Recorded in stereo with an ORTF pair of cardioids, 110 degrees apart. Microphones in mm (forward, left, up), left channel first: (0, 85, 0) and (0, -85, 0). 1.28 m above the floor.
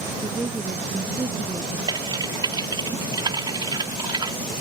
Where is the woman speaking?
20° right.